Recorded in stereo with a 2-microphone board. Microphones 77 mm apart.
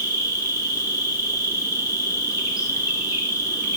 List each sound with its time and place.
0.0 s an insect: 50° left (ahead or behind), 3.5 m